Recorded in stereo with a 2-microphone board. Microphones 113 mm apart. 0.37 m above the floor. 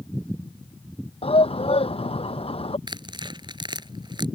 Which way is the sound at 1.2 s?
65° left (ahead or behind).